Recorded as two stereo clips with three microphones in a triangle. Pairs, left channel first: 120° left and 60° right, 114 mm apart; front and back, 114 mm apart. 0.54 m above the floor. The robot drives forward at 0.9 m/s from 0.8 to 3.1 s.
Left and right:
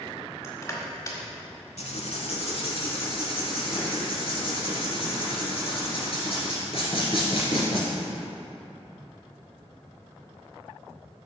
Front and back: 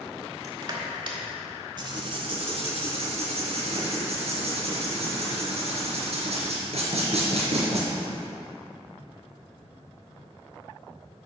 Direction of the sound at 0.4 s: 160° left.